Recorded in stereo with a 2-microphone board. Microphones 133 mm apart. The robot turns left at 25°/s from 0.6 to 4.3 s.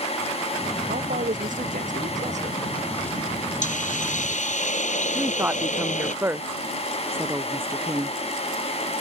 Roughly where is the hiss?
Left.